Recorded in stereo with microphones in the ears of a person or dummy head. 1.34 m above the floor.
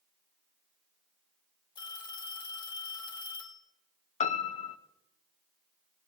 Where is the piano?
35° left (ahead or behind), 0.8 m.